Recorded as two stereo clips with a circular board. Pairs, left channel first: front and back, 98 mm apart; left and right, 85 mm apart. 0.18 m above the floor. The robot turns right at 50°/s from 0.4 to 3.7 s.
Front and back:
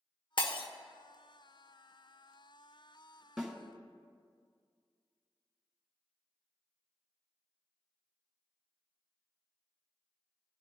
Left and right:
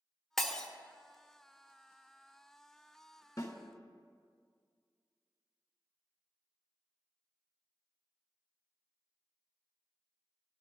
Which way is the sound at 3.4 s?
95° left.